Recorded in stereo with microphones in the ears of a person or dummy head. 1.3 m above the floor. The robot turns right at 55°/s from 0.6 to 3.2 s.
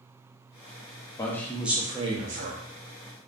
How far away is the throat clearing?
I don't hear throat clearing.